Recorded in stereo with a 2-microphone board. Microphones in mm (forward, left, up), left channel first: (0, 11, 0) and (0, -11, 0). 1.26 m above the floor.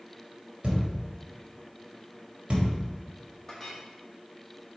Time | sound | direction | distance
0.6 | a thud | 50° right (ahead or behind) | 1.8 m
3.5 | a clink | 20° left (ahead or behind) | 1.9 m